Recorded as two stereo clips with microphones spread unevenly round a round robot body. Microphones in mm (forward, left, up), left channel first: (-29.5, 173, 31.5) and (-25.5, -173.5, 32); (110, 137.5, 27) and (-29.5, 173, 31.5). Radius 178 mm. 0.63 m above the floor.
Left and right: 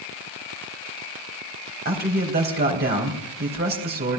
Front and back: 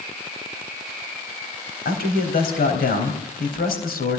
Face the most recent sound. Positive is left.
turn(degrees=-25)